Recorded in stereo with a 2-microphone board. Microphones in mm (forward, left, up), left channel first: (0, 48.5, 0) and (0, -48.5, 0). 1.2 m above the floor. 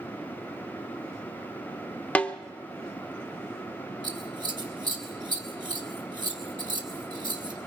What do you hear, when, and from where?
2.1 s a snare drum: 15° left (ahead or behind), 0.8 m
4.0 s scissors: 45° right (ahead or behind), 2 m